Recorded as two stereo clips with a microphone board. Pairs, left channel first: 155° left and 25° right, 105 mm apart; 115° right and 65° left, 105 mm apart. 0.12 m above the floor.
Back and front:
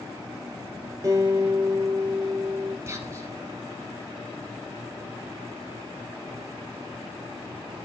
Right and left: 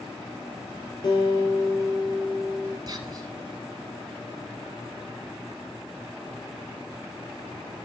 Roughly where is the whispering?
Ahead left.